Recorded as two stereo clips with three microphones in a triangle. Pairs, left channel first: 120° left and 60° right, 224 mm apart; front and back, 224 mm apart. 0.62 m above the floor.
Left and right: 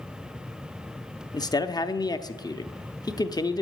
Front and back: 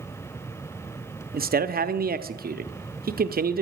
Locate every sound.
1.3 s a man speaking: straight behind, 0.7 m